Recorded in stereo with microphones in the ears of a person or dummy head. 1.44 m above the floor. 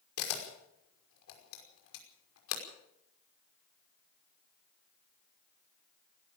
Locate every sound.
0.2 s a camera shutter: 80° left, 5.5 m